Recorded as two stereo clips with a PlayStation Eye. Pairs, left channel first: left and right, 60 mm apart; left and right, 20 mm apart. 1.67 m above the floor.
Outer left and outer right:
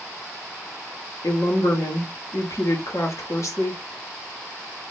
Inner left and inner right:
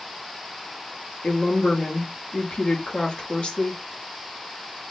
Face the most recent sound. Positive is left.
turn(degrees=60)  # may be behind; listen again after turning